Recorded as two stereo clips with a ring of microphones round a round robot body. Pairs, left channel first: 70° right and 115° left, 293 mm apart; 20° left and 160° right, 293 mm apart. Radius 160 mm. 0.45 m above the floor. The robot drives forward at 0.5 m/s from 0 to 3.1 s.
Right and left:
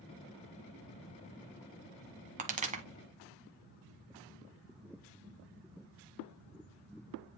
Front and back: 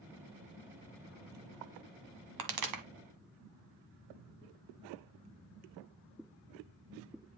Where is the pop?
Straight behind, 1.4 m.